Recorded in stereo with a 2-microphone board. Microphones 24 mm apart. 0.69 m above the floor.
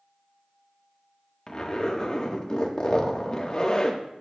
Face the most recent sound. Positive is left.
turn(degrees=35)  # may be behind; listen again after turning